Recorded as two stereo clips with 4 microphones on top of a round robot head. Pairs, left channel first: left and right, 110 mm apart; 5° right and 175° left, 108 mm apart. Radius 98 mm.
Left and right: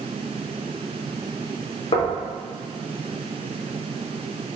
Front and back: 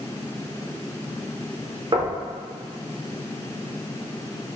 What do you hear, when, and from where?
1.9 s knocking: 125° left, 1.0 m